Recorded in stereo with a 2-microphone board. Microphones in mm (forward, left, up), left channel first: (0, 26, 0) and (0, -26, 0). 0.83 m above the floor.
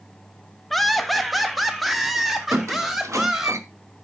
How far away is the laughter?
About 1.0 m.